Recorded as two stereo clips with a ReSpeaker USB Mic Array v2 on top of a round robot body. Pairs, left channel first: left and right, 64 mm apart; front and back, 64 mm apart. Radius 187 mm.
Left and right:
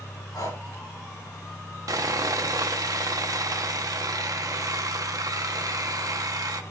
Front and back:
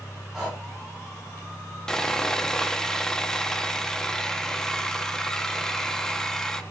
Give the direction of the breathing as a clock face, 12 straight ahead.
9 o'clock.